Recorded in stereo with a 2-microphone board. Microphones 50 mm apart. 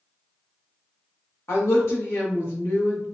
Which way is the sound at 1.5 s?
65° left (ahead or behind).